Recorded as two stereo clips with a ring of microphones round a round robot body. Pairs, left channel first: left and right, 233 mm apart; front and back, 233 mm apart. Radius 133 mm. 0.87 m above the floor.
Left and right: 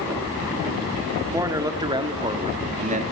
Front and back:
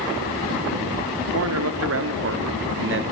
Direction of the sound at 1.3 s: 170° right.